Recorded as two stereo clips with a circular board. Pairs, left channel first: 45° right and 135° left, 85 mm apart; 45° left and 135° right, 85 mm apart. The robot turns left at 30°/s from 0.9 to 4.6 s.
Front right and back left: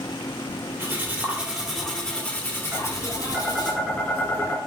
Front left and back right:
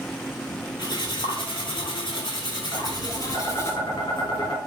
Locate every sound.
0.8 s cutlery clinking: 70° left, 1.8 m; by 3.7 s 15° right, 1.8 m
2.7 s tapping: 80° left, 2 m; by 4.6 s 25° left, 2 m